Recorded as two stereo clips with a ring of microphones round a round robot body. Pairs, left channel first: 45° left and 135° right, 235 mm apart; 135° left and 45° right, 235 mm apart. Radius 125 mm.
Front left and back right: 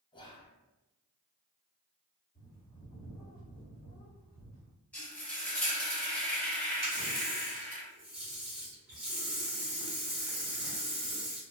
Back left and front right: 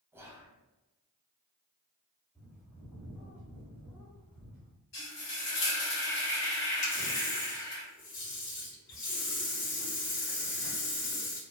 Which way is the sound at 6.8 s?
140° left.